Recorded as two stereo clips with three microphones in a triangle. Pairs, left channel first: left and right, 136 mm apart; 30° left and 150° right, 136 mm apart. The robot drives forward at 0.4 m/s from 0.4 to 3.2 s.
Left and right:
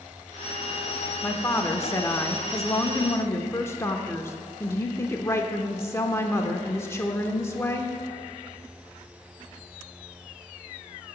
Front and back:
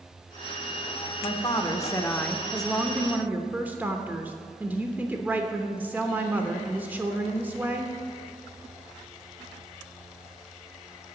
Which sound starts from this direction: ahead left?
A woman speaking, at 1.2 s.